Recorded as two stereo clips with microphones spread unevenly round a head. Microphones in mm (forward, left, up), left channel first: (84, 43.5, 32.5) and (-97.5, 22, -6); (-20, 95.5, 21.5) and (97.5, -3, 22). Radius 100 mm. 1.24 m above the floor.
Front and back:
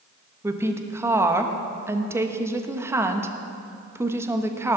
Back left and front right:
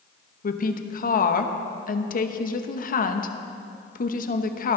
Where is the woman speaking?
110° left, 1.1 m.